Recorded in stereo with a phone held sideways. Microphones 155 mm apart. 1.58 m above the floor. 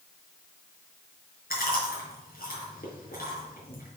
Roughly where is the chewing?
Left.